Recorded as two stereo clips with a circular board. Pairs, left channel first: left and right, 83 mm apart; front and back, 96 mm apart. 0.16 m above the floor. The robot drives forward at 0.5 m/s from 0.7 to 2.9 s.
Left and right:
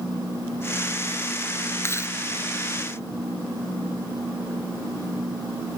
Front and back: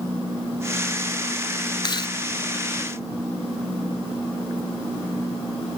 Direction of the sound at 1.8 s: 35° left.